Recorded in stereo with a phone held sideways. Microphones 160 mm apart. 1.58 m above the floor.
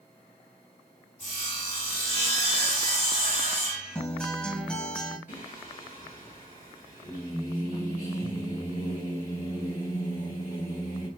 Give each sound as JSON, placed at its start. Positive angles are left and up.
{"t": 1.2, "sound": "sawing", "side_deg": 50, "distance_m": 2.5}
{"t": 4.0, "sound": "a guitar", "side_deg": 5, "distance_m": 0.8}
{"t": 5.3, "sound": "singing", "side_deg": 60, "distance_m": 2.5}